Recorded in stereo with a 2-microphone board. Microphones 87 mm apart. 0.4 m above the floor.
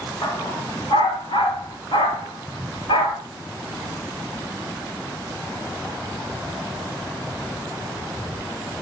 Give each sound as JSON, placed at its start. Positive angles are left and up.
{"t": 0.2, "sound": "a dog barking", "side_deg": 60, "distance_m": 5.5}